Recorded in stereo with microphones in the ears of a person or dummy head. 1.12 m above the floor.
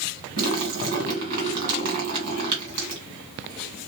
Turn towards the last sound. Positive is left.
turn(degrees=-50)  # may be behind; listen again after turning